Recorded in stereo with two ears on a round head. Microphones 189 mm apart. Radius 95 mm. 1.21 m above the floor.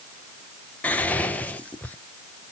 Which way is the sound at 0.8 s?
5° left (ahead or behind).